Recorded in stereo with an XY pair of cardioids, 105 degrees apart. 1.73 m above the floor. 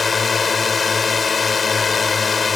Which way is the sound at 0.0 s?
35° left.